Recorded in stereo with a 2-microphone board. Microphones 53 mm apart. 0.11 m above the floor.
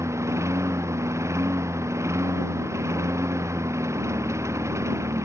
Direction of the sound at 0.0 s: 70° right (ahead or behind).